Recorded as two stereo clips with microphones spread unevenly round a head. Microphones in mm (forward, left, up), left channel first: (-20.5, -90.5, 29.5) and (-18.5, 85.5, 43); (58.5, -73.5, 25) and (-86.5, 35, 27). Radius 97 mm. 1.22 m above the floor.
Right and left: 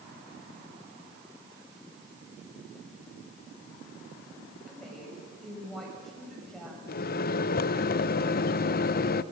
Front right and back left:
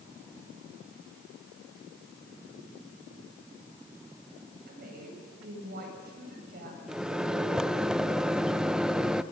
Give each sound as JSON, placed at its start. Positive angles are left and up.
{"t": 4.7, "sound": "a woman speaking", "azimuth_deg": 180, "distance_m": 7.0}
{"t": 6.9, "sound": "a microwave", "azimuth_deg": -130, "distance_m": 0.5}